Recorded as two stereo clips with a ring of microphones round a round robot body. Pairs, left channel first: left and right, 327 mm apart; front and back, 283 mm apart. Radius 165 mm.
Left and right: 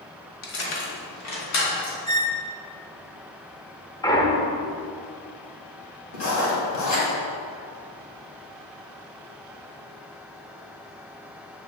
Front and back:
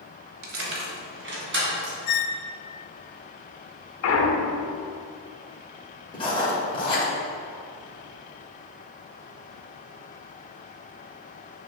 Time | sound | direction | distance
0.4 | keys jangling | 140° left | 1.4 m
2.1 | a squeak | 10° left | 0.7 m
4.0 | a clunk | 15° left | 0.8 m
6.1 | writing | 70° left | 2.5 m